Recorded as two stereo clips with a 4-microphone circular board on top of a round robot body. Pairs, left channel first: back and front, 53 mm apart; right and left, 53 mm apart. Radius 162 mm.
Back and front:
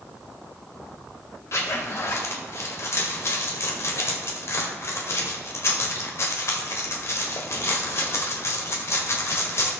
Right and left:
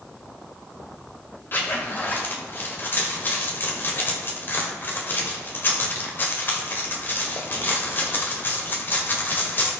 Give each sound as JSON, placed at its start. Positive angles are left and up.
{"t": 1.5, "sound": "a zipper", "azimuth_deg": -140, "distance_m": 1.7}